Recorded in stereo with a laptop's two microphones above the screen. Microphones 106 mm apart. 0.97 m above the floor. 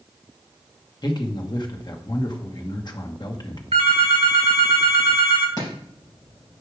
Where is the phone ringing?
75° right (ahead or behind), 1.3 m.